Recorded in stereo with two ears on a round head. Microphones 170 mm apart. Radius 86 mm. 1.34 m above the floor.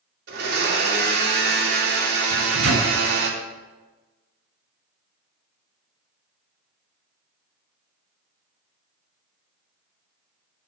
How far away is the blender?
About 2.5 m.